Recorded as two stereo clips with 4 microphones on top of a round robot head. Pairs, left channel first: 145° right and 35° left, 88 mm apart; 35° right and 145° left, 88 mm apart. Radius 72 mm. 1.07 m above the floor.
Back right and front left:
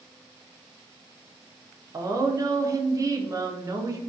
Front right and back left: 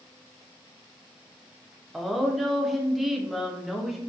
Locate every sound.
1.9 s a woman speaking: 60° left, 0.5 m